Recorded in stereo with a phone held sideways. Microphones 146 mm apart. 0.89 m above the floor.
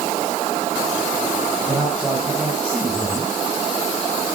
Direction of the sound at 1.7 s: 5° right (ahead or behind).